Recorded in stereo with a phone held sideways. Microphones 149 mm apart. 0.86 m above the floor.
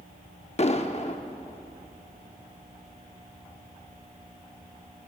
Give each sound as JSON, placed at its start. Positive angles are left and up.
{"t": 0.6, "sound": "an explosion", "side_deg": 50, "distance_m": 0.6}